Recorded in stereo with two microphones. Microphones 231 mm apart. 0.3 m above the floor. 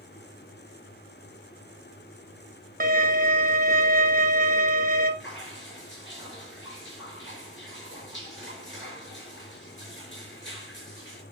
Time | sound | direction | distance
2.8 | a violin | 40° right (ahead or behind) | 1.2 m
5.2 | dripping | 55° left (ahead or behind) | 4.5 m